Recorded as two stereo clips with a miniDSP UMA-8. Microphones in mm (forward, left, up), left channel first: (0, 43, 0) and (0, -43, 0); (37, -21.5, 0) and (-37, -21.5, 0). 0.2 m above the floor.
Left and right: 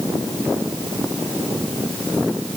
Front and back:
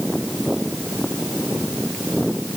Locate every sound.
Only background noise.